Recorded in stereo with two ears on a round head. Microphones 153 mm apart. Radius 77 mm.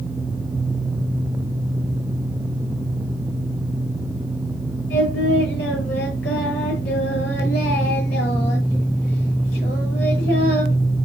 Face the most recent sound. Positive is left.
turn(degrees=70)  # may be behind; listen again after turning